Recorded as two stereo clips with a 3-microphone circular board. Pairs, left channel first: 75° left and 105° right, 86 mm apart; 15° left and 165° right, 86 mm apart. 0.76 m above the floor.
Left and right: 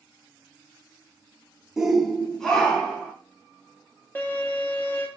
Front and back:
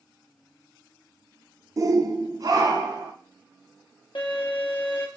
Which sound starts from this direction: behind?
A shout, at 1.8 s.